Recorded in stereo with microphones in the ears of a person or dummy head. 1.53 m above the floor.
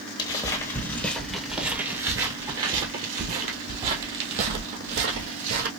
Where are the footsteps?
25° left (ahead or behind), 1.7 m; by 5.7 s 60° right (ahead or behind), 3 m.